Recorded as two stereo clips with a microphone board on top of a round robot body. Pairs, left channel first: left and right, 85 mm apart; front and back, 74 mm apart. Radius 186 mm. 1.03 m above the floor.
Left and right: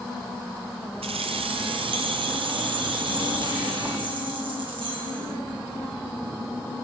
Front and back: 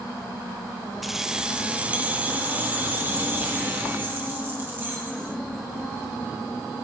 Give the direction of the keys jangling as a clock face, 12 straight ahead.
3 o'clock.